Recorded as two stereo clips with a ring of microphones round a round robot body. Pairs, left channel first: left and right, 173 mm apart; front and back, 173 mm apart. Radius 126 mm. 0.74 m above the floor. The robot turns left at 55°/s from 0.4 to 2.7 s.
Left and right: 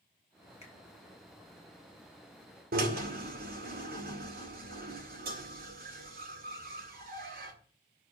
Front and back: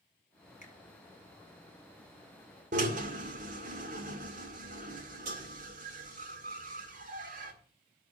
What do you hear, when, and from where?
0.6 s a finger snap: 45° left, 10 m; by 0.7 s 35° left, 10 m
2.7 s a drill: 130° right, 2 m